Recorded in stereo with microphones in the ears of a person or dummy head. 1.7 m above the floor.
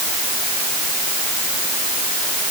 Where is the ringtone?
I don't hear a ringtone.